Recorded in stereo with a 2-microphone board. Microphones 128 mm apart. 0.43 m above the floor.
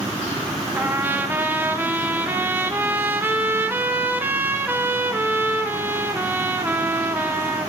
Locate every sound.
0.8 s a trumpet: 15° right (ahead or behind), 0.7 m